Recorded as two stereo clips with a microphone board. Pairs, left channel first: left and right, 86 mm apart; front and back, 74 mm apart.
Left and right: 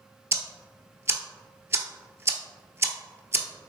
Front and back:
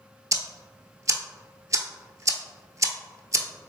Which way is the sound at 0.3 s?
145° right.